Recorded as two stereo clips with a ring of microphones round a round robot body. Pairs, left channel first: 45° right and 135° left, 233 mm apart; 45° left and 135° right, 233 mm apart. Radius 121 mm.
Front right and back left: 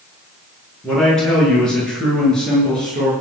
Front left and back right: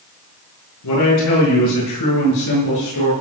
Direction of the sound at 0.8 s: 40° left.